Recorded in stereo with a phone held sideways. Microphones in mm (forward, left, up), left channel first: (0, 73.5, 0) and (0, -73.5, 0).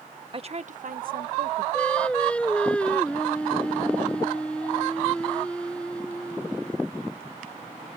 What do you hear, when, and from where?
0.3 s a woman speaking: 40° right (ahead or behind); by 1.6 s 90° right
1.7 s singing: 10° left (ahead or behind)